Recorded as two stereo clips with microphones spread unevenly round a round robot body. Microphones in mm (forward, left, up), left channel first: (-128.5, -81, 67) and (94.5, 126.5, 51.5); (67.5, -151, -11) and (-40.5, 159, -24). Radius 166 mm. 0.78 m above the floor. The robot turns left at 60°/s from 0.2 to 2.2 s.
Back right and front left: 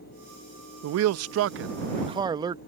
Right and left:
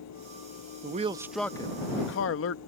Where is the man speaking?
55° left; by 2.6 s 30° right.